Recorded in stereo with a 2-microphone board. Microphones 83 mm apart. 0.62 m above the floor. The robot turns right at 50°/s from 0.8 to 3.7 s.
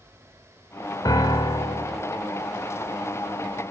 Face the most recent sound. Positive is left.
turn(degrees=-175)